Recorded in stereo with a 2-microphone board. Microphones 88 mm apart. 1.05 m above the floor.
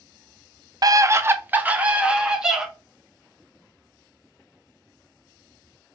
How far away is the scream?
About 0.5 m.